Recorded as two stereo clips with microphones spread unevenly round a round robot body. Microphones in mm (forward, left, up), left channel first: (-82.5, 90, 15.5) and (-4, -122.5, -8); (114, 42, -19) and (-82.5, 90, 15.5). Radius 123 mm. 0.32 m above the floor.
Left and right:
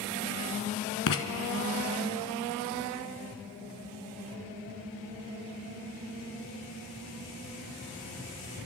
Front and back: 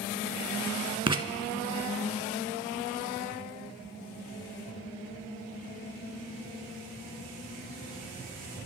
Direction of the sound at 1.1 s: 100° left.